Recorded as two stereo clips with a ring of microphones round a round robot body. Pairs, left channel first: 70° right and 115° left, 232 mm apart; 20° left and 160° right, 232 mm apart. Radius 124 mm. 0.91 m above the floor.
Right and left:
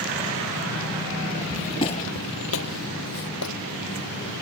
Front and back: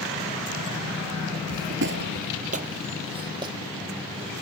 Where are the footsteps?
155° right; by 3.5 s 85° right.